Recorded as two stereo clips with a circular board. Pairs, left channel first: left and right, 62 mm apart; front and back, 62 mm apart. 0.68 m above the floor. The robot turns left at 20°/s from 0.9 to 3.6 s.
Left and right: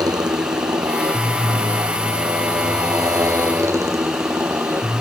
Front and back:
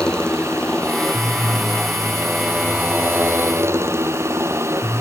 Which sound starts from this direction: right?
A motorcycle, at 0.0 s.